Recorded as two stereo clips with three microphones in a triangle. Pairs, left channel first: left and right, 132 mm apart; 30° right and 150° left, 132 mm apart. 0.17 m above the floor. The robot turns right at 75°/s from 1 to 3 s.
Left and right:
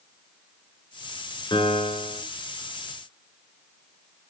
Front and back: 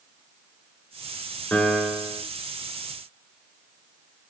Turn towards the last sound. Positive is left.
turn(degrees=155)